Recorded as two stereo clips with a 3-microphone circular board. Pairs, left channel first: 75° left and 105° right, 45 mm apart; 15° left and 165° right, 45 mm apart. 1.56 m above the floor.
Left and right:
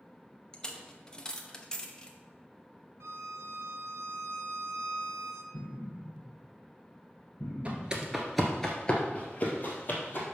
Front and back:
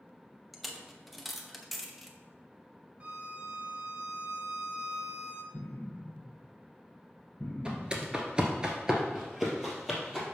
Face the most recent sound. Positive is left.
turn(degrees=110)